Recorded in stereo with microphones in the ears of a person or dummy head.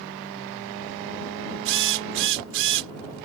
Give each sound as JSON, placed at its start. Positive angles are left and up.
{"t": 1.6, "sound": "a drill", "side_deg": -70}